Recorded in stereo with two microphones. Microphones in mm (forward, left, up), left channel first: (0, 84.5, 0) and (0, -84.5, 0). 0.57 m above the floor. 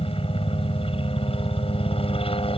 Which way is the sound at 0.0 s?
35° left (ahead or behind).